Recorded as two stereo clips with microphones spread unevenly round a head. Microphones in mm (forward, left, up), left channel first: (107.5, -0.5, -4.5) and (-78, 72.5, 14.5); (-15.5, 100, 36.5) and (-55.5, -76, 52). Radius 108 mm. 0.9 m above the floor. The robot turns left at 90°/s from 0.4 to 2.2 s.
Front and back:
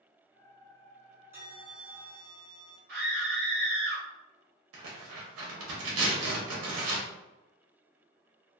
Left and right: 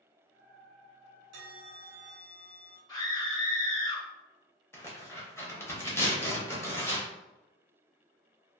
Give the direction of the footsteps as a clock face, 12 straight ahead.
No footsteps in this recording.